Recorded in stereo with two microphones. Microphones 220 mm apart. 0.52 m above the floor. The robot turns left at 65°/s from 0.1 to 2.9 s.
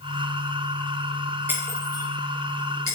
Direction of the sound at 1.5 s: 10° right (ahead or behind).